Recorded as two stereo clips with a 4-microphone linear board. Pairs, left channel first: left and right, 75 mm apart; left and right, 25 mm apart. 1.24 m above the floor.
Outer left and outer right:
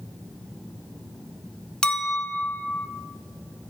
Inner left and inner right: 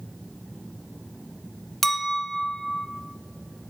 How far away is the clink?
About 0.5 m.